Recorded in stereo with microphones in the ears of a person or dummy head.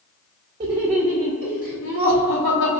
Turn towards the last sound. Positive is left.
turn(degrees=60)  # may be behind; listen again after turning